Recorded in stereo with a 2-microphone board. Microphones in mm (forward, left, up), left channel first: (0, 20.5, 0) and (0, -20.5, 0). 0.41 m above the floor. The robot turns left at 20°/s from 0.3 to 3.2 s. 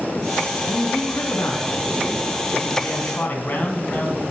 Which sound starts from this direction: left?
A man speaking, at 0.7 s.